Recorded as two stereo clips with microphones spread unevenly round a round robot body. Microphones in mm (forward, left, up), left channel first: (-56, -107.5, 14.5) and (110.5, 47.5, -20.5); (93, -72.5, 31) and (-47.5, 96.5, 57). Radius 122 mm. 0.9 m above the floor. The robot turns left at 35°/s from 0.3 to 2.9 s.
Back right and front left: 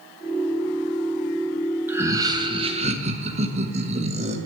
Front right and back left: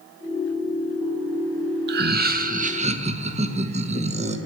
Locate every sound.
1.9 s laughter: 110° left, 1.0 m; by 4.4 s 75° left, 1.0 m